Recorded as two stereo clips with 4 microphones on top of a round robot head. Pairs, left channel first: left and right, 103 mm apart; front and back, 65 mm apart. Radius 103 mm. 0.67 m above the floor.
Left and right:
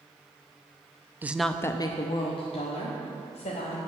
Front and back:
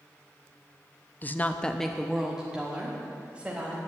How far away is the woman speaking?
About 0.7 m.